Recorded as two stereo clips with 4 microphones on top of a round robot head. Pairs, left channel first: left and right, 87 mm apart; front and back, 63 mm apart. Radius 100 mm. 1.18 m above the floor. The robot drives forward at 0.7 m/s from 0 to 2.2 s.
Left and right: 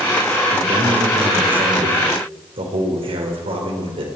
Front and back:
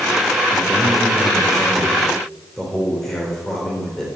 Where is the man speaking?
70° right, 4 m; by 4.1 s 85° right, 3.5 m.